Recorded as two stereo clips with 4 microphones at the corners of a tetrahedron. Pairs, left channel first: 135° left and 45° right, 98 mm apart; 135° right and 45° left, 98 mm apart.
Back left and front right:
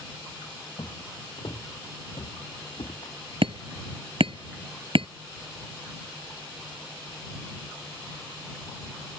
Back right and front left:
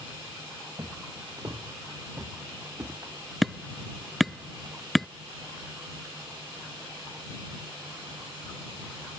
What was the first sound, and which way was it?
Footsteps, 90° left.